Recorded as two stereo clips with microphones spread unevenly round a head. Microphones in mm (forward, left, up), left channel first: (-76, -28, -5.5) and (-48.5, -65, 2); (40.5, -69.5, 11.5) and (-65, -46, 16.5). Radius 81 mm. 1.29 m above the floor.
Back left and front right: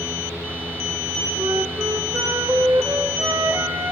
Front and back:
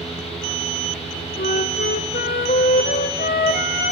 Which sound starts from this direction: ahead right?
A fan, at 0.0 s.